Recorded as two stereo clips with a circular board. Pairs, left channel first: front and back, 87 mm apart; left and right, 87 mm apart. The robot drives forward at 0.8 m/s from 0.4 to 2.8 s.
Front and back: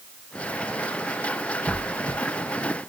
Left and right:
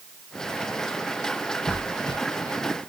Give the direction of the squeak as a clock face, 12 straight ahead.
8 o'clock.